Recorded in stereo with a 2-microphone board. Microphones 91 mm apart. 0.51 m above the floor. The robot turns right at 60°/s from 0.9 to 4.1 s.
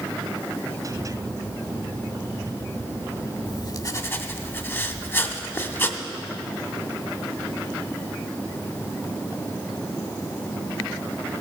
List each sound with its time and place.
3.5 s writing: 115° left, 0.8 m; by 6.0 s 150° left, 0.8 m